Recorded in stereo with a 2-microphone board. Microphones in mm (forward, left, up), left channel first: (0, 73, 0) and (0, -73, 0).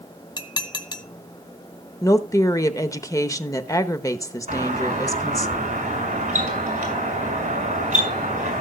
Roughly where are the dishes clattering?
Left.